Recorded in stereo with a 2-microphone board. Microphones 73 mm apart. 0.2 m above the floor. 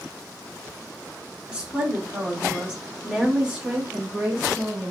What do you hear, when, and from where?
1.5 s a woman speaking: 20° right (ahead or behind), 1.8 m; by 4.9 s 15° right (ahead or behind), 1.9 m